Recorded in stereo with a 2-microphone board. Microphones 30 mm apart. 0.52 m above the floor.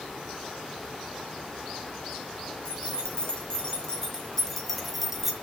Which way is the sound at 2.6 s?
35° left (ahead or behind).